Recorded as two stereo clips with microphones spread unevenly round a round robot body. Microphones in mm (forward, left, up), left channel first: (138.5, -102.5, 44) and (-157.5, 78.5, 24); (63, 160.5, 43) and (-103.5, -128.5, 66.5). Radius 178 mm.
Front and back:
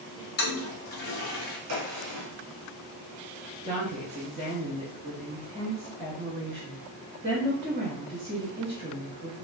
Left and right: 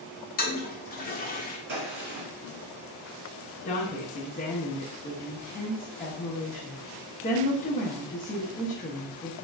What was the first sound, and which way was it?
A toilet flushing, 15° left.